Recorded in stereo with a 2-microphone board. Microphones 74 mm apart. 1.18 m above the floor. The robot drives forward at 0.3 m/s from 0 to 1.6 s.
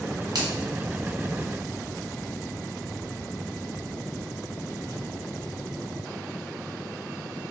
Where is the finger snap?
70° right (ahead or behind), 1.1 m.